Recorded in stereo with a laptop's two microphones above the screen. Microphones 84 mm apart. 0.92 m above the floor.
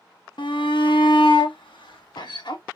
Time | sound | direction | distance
0.4 | a shout | 70° left (ahead or behind) | 1.0 m